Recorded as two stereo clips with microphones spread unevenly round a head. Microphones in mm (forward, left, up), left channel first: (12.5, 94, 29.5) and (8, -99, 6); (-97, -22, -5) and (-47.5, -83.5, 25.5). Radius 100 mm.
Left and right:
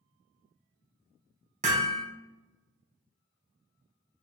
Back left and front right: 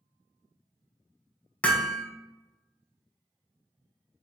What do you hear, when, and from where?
1.6 s hammering: 150° right, 0.8 m